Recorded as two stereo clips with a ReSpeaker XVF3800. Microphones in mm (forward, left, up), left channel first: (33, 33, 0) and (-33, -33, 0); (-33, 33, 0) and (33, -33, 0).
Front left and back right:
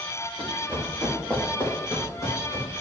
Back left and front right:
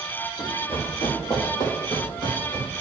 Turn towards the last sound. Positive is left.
turn(degrees=90)